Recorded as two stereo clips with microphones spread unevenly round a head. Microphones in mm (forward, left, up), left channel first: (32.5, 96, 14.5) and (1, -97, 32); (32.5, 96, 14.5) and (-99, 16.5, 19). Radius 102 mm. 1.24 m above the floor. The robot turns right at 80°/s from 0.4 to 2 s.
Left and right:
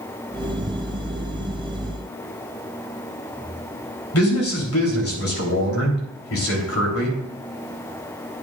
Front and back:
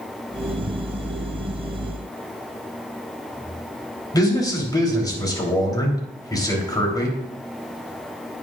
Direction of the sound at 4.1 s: 95° left.